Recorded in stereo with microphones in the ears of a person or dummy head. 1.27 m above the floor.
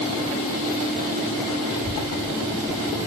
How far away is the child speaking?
About 7 m.